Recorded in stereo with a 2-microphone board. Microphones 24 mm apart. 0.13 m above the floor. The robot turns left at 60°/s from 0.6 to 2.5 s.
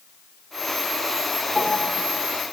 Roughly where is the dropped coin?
No dropped coin in this recording.